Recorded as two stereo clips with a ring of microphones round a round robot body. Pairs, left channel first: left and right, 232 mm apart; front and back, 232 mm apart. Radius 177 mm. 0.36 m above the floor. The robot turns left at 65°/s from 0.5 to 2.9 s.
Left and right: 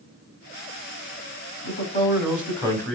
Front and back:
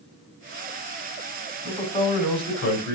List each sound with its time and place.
1.6 s a man speaking: 85° left, 3 m; by 3.0 s straight ahead, 3 m